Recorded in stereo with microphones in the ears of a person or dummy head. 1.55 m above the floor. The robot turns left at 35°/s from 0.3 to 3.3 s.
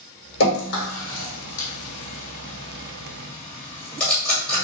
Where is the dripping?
70° left (ahead or behind), 1.4 m; by 4.6 s 5° left (ahead or behind), 1.4 m.